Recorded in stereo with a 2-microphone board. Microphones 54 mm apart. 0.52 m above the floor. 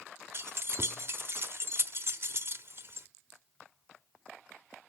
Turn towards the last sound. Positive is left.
turn(degrees=-50)  # may be behind; listen again after turning